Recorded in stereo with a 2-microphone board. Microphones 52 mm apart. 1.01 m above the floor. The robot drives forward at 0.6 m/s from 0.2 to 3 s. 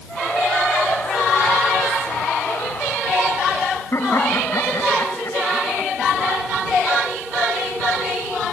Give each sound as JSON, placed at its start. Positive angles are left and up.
{"t": 3.9, "sound": "laughter", "side_deg": 60}